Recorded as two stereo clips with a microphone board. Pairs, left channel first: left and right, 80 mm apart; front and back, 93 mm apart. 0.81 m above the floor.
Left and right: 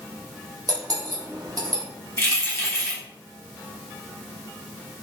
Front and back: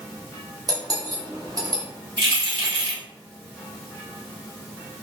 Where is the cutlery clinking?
130° right, 0.8 m.